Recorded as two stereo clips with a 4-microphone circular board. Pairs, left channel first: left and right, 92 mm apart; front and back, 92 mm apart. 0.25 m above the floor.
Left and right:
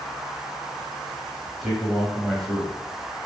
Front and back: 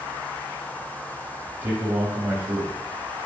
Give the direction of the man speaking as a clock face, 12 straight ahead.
6 o'clock.